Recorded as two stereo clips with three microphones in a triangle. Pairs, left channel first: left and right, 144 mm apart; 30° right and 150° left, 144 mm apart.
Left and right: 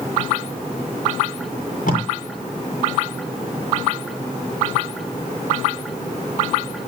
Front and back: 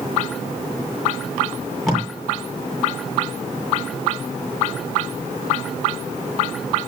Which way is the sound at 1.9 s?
60° left.